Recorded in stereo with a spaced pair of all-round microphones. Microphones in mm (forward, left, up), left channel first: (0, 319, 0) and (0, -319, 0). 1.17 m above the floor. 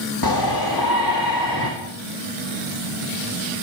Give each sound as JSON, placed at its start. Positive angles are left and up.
{"t": 0.2, "sound": "a shout", "side_deg": 35, "distance_m": 2.5}